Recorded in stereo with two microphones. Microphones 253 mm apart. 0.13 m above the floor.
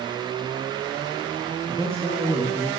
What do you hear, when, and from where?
1.7 s a man speaking: 5° left (ahead or behind), 2.5 m